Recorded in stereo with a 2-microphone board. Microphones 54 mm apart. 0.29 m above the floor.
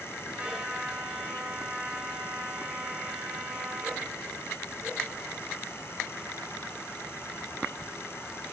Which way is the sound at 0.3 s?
20° right (ahead or behind).